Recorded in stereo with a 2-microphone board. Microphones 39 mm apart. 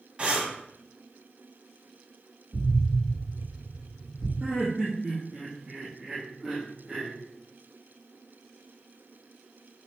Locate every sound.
0.2 s breathing: 30° right (ahead or behind), 0.8 m
2.5 s an explosion: 5° right (ahead or behind), 2.5 m
4.4 s laughter: 15° right (ahead or behind), 0.7 m